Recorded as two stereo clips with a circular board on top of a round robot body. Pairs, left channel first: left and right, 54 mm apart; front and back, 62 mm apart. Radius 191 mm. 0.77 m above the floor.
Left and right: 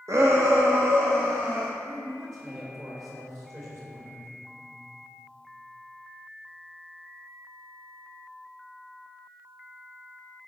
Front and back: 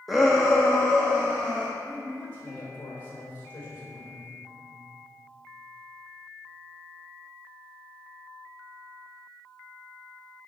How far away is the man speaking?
About 3.5 m.